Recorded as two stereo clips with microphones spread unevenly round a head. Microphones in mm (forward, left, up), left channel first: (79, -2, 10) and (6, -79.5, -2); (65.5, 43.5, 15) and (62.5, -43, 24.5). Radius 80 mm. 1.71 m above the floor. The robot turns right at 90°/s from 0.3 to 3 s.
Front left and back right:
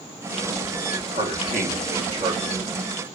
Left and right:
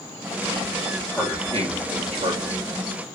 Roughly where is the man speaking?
Behind.